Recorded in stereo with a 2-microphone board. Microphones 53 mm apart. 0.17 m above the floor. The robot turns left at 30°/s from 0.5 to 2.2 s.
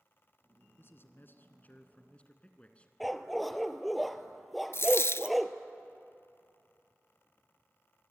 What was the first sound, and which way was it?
A man speaking, 70° left.